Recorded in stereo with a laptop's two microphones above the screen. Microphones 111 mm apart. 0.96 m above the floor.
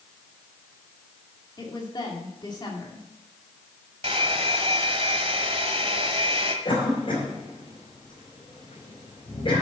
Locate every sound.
1.6 s a woman speaking: 40° left (ahead or behind), 2 m
4.0 s a hair dryer: 55° right (ahead or behind), 1.3 m
6.7 s a cough: 50° left (ahead or behind), 3 m